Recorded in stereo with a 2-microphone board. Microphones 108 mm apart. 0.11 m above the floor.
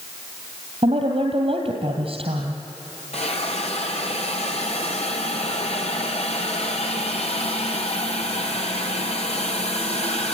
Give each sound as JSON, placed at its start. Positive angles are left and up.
{"t": 0.8, "sound": "a woman speaking", "side_deg": -65, "distance_m": 2.5}
{"t": 3.1, "sound": "a hiss", "side_deg": 75, "distance_m": 3.5}